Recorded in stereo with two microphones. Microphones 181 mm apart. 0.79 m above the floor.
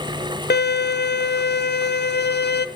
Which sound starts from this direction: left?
A violin, at 0.5 s.